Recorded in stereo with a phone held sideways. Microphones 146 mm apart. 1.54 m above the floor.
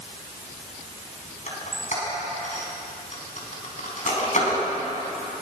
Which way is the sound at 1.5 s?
55° left (ahead or behind).